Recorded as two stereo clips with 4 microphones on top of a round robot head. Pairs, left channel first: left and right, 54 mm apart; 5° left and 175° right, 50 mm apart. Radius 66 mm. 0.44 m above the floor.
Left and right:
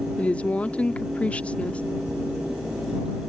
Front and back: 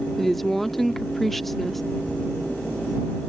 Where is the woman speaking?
85° left.